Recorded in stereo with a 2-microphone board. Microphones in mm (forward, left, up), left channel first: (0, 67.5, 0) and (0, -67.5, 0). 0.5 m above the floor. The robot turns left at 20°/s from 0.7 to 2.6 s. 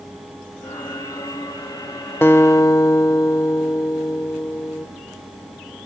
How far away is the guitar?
About 0.6 m.